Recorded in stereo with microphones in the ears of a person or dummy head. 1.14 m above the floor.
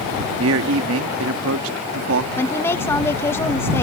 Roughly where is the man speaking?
Right.